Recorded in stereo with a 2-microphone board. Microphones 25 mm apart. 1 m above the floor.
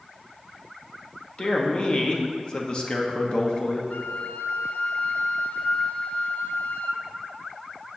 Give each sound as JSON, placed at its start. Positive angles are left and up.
{"t": 1.4, "sound": "a man speaking", "side_deg": 40, "distance_m": 1.1}
{"t": 3.9, "sound": "a flute", "side_deg": 70, "distance_m": 0.6}